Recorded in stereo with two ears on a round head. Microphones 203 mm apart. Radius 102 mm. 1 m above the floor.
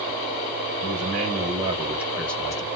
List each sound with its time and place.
0.8 s a man speaking: 45° right (ahead or behind), 1.1 m; by 2.6 s 20° left (ahead or behind), 0.8 m